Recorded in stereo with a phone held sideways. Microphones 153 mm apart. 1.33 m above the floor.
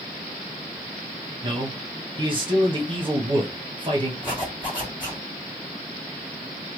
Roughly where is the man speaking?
Right.